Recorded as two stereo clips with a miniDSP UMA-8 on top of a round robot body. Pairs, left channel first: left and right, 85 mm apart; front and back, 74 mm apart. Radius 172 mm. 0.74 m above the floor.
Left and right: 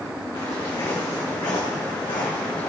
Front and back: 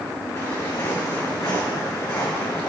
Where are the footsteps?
55° left, 5 m; by 2.7 s 65° left, 3.5 m.